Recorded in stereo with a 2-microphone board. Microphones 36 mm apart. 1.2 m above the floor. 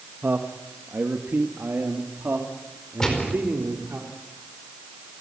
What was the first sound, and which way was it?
A man speaking, 80° right.